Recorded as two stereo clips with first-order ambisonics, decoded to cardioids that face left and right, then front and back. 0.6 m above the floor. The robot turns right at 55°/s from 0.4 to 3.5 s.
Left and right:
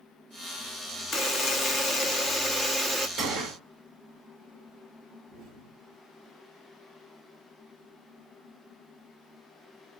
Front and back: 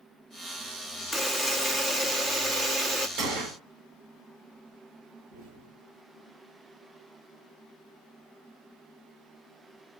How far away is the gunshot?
About 1.6 m.